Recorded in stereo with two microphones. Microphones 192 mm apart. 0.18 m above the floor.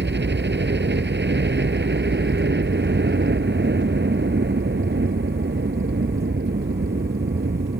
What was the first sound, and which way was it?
A helicopter, 65° right (ahead or behind).